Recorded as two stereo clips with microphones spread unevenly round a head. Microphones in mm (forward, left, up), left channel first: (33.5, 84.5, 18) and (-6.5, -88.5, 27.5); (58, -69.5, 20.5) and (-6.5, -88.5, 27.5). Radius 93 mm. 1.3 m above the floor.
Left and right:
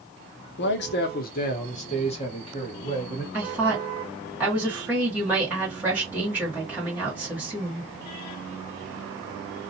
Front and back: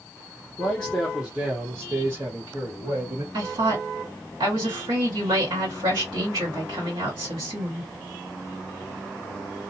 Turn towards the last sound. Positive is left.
turn(degrees=175)